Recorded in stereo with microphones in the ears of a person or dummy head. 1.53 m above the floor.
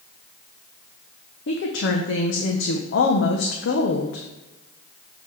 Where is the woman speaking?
65° left (ahead or behind), 1.0 m.